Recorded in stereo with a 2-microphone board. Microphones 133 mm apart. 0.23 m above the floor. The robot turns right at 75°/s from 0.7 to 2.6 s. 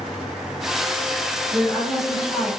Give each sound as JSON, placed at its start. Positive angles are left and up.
{"t": 1.5, "sound": "a woman speaking", "side_deg": -10, "distance_m": 1.2}